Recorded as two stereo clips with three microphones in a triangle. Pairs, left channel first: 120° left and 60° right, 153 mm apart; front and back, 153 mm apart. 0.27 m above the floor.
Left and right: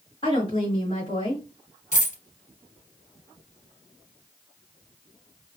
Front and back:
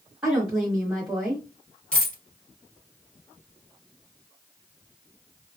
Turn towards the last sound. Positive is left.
turn(degrees=85)